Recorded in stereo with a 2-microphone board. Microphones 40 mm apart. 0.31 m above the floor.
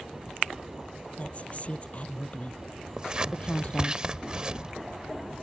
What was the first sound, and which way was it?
A woman speaking, 40° left (ahead or behind).